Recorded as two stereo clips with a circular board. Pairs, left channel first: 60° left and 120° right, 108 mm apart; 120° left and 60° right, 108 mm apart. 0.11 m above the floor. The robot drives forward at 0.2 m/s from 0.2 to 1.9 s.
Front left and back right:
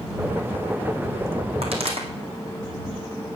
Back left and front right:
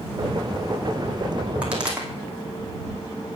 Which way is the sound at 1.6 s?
140° right.